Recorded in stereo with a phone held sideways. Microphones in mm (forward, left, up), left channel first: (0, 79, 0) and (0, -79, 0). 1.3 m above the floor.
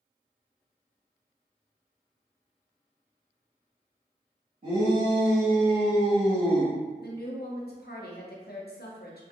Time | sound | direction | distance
4.6 | a shout | 60° right (ahead or behind) | 1.7 m
7.0 | a woman speaking | 80° left | 0.7 m